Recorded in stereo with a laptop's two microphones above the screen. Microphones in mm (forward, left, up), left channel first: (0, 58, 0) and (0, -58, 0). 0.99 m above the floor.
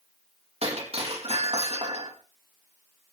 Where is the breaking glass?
55° right (ahead or behind), 4.5 m.